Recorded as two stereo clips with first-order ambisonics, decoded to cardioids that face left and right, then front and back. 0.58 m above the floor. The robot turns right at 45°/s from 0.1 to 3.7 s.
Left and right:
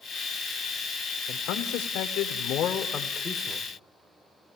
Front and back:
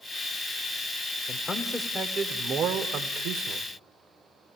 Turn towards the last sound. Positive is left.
turn(degrees=180)